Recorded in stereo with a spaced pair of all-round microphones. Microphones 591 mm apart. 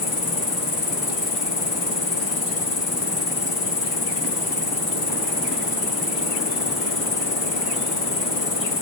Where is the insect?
40° left (ahead or behind), 0.9 m.